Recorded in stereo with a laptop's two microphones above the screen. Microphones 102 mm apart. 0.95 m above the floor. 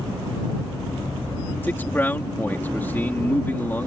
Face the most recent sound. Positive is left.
turn(degrees=20)  # may be behind; listen again after turning